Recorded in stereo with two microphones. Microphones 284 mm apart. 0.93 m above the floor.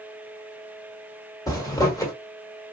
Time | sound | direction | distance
1.5 | a zipper | 10° left (ahead or behind) | 1.1 m